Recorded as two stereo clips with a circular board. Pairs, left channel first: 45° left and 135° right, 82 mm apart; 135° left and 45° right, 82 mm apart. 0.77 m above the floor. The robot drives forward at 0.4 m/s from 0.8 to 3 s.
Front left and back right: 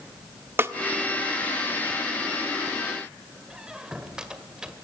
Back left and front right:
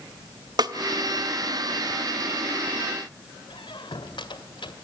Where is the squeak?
145° left, 1.9 m.